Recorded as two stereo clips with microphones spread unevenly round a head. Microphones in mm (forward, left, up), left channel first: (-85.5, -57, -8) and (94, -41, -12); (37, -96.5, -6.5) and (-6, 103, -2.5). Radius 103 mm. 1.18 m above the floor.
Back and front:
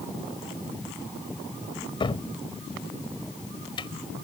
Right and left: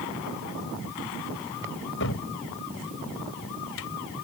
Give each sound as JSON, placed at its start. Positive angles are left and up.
{"t": 2.0, "sound": "a cupboard door", "azimuth_deg": -110}